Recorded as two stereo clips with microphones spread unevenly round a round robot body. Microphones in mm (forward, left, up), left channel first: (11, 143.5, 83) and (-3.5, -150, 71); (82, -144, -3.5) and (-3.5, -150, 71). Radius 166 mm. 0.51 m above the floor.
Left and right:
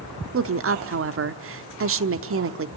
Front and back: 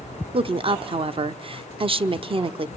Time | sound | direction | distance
0.3 | a woman speaking | 115° right | 1.0 m